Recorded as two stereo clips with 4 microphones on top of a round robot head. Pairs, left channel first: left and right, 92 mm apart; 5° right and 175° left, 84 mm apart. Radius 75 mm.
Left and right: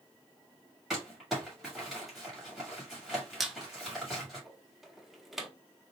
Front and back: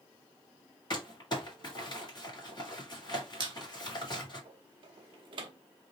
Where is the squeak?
175° right, 0.8 m.